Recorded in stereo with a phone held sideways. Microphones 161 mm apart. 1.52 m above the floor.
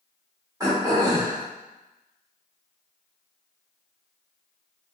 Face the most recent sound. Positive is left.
turn(degrees=-25)  # may be behind; listen again after turning